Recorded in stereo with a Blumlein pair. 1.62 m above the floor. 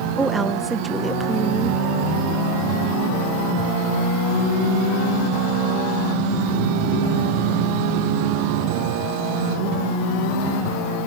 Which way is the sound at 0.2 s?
10° right.